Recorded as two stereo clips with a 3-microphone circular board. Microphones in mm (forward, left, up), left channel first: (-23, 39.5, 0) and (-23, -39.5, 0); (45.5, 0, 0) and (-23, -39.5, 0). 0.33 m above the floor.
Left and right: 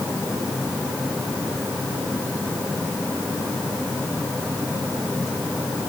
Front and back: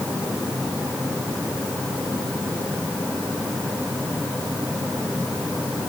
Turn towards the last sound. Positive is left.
No sound to turn to.